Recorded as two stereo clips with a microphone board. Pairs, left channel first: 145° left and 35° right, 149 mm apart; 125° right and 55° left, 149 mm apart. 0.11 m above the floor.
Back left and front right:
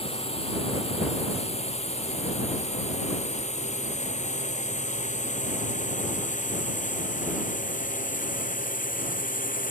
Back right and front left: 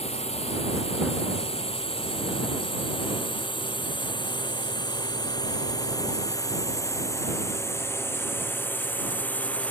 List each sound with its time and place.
0.0 s a drone: 165° right; by 9.7 s 155° left